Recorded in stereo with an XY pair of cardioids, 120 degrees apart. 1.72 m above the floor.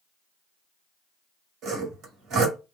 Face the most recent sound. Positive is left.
turn(degrees=-65)